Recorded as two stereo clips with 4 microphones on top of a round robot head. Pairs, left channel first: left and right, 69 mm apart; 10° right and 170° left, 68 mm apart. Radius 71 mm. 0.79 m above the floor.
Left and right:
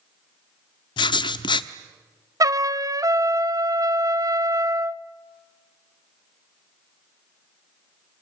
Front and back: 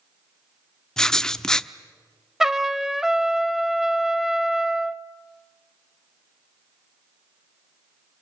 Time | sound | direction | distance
1.0 | writing | 75° left | 0.8 m
2.4 | a trumpet | 105° right | 0.9 m